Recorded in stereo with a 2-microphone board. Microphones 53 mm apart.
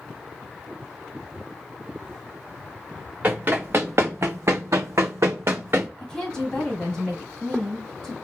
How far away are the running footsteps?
About 1.1 m.